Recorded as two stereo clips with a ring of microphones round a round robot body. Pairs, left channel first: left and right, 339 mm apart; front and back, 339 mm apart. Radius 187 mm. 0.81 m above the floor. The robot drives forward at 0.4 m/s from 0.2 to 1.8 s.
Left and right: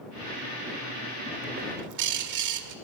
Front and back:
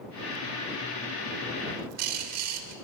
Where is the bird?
125° right, 1.2 m.